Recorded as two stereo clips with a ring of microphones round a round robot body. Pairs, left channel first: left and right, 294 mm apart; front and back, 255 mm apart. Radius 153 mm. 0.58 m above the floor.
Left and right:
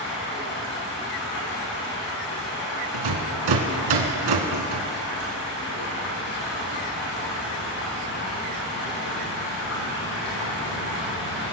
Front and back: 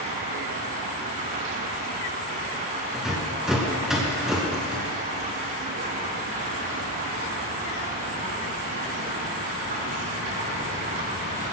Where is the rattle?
90° right, 2 m.